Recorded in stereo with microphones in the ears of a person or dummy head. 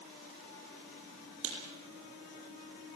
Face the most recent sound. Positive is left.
turn(degrees=-75)  # may be behind; listen again after turning